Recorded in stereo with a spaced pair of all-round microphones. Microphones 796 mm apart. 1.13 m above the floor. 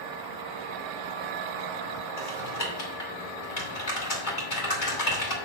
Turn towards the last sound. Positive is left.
turn(degrees=75)  # may be behind; listen again after turning